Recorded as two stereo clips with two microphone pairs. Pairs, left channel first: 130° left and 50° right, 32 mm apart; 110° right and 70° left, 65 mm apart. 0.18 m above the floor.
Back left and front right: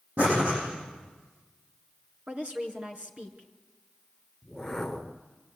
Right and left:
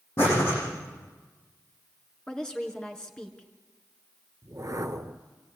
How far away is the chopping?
I don't hear chopping.